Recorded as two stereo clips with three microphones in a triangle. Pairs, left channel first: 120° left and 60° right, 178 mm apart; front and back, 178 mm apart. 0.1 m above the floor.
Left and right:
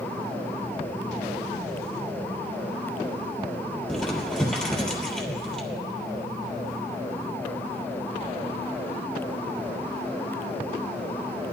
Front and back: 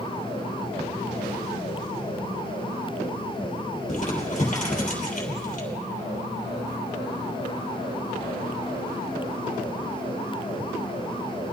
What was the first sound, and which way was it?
Crumpling, 35° left.